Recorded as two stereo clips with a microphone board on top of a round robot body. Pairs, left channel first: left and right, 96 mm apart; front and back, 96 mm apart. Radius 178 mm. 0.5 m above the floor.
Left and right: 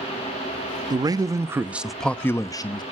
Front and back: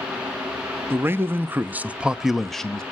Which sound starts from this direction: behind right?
A man speaking, at 0.9 s.